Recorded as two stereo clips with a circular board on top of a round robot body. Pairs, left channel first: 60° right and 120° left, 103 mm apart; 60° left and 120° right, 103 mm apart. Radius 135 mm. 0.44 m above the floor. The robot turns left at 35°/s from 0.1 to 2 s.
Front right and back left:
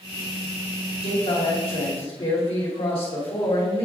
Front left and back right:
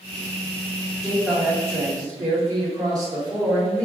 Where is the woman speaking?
35° right, 2.5 m; by 3.9 s 70° right, 2.5 m.